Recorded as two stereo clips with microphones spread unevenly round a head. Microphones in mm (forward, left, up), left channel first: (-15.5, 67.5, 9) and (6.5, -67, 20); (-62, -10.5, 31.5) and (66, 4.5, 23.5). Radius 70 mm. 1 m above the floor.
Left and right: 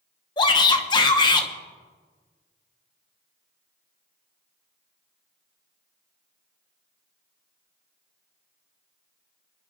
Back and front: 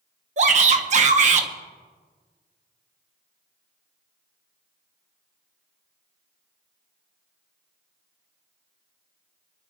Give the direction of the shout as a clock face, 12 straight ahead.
11 o'clock.